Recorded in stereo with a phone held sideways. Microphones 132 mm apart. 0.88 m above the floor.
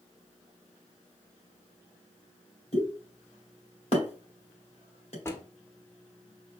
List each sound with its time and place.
2.7 s a pop: 50° left (ahead or behind), 1.9 m
5.2 s a drawer: 20° left (ahead or behind), 0.8 m